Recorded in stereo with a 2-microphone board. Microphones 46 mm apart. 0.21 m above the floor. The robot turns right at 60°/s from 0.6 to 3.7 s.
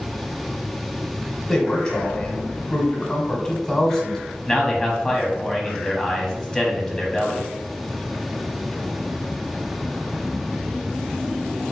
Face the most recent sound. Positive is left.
turn(degrees=20)  # may be behind; listen again after turning